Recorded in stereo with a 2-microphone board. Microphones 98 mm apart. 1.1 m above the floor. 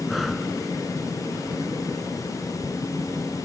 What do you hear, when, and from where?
0.1 s breathing: centre (ahead or behind)